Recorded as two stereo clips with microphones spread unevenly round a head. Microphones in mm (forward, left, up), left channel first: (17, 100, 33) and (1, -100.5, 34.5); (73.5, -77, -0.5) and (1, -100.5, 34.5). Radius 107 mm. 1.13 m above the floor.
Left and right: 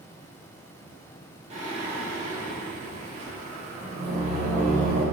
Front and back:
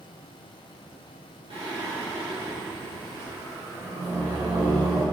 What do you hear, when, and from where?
1.5 s singing: 155° right, 3 m